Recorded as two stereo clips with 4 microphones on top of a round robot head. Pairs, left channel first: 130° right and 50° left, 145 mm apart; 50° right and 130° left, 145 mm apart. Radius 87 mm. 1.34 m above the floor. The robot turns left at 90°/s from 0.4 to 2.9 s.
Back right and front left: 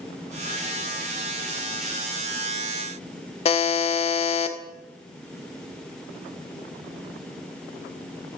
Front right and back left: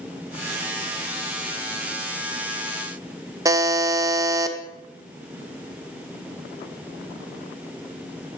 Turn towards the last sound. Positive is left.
turn(degrees=-170)